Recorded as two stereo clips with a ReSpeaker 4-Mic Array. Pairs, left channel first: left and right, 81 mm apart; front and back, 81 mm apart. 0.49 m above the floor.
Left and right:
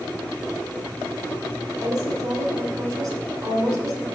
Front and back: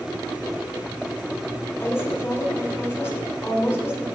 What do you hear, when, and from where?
1.8 s a woman speaking: 60° right, 2 m